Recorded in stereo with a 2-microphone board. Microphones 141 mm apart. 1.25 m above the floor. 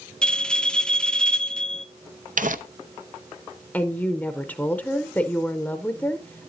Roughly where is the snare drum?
I don't hear a snare drum.